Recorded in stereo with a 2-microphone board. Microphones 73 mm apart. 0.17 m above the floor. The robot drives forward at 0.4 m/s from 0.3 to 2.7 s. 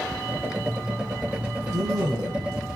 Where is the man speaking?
65° right (ahead or behind), 3 m; by 2.7 s 70° right (ahead or behind), 3 m.